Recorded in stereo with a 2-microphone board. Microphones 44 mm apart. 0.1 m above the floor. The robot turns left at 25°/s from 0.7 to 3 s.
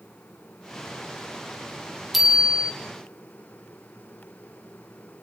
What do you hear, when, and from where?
2.1 s a bicycle bell: 5° right (ahead or behind), 3 m; by 2.7 s 20° right (ahead or behind), 3 m